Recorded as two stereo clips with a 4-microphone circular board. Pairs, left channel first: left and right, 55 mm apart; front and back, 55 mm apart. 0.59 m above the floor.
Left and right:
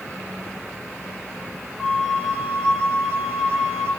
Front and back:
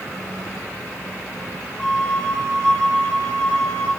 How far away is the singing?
I don't hear singing.